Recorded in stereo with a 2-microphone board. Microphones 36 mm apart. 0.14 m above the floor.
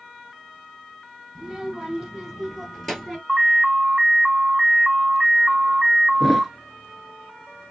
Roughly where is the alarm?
Centre.